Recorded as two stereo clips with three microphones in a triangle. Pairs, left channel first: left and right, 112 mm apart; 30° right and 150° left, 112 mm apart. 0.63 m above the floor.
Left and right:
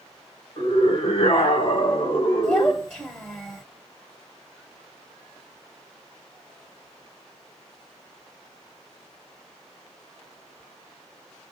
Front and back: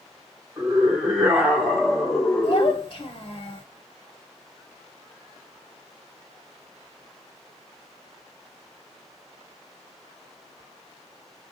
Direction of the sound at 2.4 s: 15° left.